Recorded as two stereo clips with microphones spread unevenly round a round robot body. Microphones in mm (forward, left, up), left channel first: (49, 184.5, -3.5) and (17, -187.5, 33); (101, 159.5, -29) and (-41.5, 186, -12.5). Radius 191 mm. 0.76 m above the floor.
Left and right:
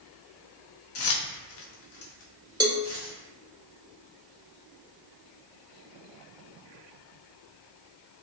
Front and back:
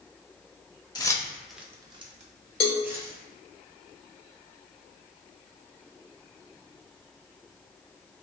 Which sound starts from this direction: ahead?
A cowbell, at 2.6 s.